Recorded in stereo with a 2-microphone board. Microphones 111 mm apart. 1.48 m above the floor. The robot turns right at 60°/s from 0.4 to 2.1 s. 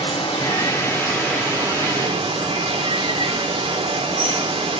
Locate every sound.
0.0 s running water: 130° left, 1.1 m; by 4.8 s 130° right, 1.1 m